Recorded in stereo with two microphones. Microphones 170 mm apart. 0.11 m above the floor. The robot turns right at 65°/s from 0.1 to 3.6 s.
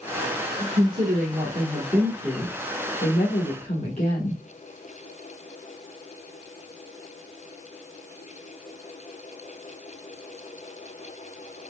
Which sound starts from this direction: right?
A woman speaking, at 0.6 s.